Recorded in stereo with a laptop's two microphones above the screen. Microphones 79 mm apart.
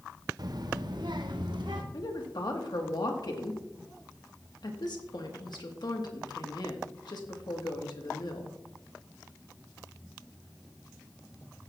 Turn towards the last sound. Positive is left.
turn(degrees=65)  # may be behind; listen again after turning